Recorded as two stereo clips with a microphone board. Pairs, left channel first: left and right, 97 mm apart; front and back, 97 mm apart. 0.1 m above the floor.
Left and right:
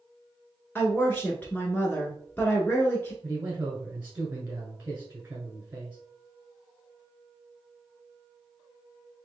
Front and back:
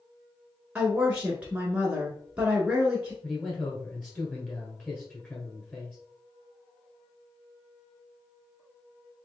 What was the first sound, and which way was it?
A woman speaking, 125° left.